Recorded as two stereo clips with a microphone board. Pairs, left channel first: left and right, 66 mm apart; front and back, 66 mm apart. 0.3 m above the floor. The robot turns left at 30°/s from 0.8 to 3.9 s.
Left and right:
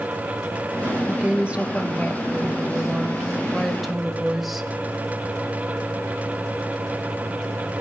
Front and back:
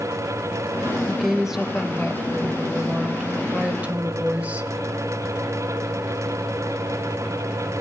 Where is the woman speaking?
90° right, 1.1 m; by 4.7 s 175° right, 1.1 m.